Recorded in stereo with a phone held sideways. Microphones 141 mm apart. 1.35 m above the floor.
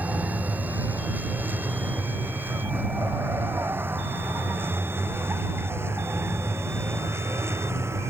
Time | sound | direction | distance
0.0 | a vehicle | 10° right (ahead or behind) | ?